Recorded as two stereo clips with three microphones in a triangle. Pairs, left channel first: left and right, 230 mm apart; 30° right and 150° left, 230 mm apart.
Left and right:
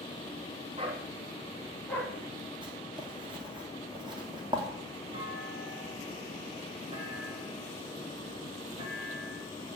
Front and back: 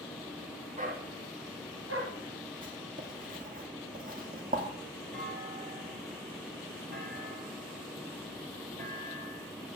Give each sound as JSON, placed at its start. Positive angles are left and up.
{"t": 0.8, "sound": "a dog barking", "azimuth_deg": -155, "distance_m": 2.5}
{"t": 2.6, "sound": "writing", "azimuth_deg": -160, "distance_m": 2.5}
{"t": 5.1, "sound": "a clunk", "azimuth_deg": -160, "distance_m": 4.0}